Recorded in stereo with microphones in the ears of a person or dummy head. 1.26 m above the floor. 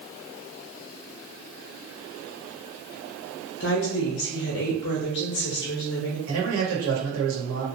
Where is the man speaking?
70° right (ahead or behind), 1.3 m.